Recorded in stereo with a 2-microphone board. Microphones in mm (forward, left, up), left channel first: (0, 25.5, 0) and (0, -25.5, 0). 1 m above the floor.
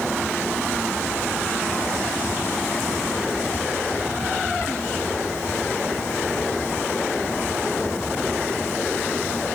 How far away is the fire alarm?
No fire alarm in this recording.